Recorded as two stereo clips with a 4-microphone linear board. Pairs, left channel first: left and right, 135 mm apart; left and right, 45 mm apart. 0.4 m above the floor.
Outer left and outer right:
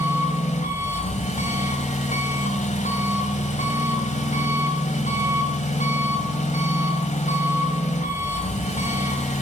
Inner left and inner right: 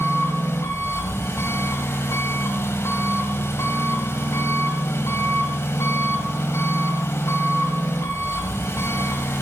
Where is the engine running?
65° left (ahead or behind), 1.7 m.